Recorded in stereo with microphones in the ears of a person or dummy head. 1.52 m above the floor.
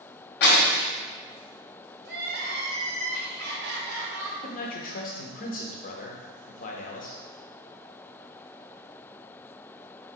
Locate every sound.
0.4 s breaking glass: 55° left (ahead or behind), 1.2 m
2.0 s crying: 50° right (ahead or behind), 1.0 m
4.4 s a man speaking: 40° left (ahead or behind), 0.6 m